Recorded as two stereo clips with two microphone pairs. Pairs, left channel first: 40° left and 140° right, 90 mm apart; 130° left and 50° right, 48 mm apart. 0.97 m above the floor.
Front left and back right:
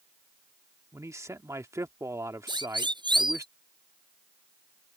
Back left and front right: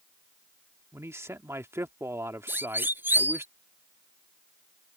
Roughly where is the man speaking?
Right.